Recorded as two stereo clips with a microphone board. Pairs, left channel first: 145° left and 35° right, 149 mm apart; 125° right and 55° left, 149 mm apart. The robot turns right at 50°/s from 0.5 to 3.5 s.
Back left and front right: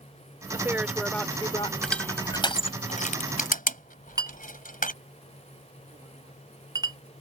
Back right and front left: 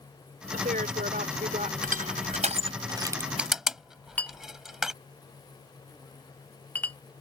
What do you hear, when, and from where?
0.5 s a woman speaking: 30° left; by 1.7 s 90° left
1.8 s crushing: 60° left; by 4.9 s 140° left
4.2 s a clink: 55° right